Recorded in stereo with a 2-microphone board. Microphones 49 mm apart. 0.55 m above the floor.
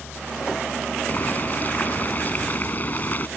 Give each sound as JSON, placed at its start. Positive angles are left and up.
{"t": 1.1, "sound": "boiling", "side_deg": 35}